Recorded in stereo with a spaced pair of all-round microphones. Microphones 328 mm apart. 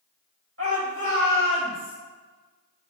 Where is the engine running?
No engine running in this recording.